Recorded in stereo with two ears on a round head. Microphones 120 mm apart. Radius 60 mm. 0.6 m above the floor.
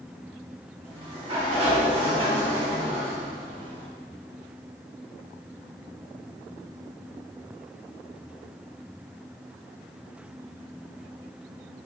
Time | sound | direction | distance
0.8 | a sliding door | 45° right (ahead or behind) | 2.5 m